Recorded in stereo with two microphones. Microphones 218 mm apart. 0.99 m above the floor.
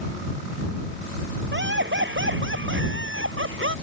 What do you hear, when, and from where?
1.5 s laughter: 55° right (ahead or behind); by 3.8 s 65° right (ahead or behind)